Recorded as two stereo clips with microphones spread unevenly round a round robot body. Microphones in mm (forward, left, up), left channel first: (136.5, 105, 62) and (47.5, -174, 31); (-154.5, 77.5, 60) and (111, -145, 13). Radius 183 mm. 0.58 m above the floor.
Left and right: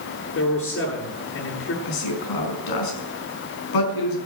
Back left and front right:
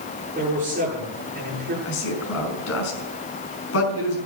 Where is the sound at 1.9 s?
85° left, 5.5 m.